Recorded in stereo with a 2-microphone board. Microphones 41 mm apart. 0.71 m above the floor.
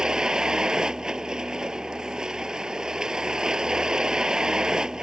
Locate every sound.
0.0 s a vehicle: 20° right (ahead or behind)